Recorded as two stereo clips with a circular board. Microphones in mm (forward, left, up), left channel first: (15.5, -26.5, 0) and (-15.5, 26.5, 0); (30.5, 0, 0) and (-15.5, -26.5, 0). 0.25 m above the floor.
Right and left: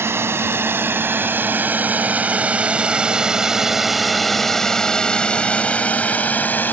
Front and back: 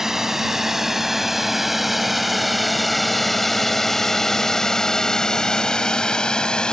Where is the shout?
No shout in this recording.